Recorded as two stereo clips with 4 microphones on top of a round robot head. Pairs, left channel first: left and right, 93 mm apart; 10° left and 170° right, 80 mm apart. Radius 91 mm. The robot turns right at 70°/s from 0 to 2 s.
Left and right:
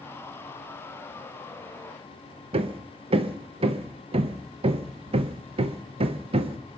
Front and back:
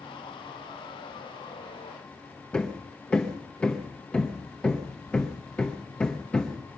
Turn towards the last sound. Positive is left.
turn(degrees=-70)